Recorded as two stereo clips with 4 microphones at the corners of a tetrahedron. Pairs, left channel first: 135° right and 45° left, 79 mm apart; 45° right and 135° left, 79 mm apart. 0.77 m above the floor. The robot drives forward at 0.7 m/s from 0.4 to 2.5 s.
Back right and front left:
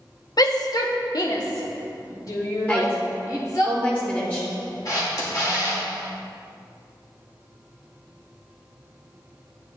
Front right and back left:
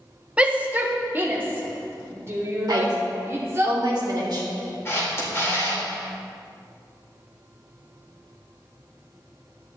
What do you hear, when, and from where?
0.4 s a shout: 155° right, 0.9 m; by 3.7 s 170° right, 2 m
2.7 s a woman speaking: 160° left, 2.5 m
4.8 s a camera shutter: 100° right, 2.5 m